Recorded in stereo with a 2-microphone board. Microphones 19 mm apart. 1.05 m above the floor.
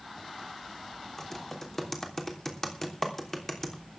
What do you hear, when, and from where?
1.2 s typing on a keyboard: 20° left (ahead or behind), 3 m